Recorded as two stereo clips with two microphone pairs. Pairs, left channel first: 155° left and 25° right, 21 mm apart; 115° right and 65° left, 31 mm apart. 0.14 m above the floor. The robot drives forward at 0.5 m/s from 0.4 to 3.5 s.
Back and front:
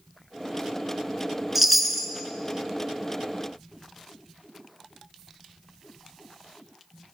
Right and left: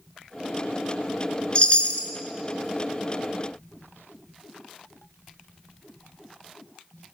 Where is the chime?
95° right, 0.5 m; by 2.1 s 130° right, 0.6 m.